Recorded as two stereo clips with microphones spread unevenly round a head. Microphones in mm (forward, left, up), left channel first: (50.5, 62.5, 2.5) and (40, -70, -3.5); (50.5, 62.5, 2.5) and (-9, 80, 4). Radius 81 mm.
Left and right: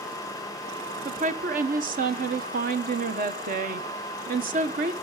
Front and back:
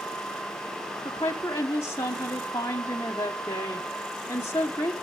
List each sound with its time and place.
1.1 s a woman speaking: 75° right, 1.5 m